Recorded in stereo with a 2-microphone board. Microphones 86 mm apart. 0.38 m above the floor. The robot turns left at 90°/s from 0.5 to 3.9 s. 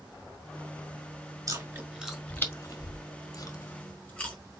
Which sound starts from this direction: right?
Chewing, at 1.5 s.